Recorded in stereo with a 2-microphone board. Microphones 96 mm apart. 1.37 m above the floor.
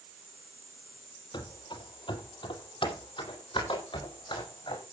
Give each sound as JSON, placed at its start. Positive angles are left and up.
{"t": 1.3, "sound": "running footsteps", "side_deg": 55, "distance_m": 2.0}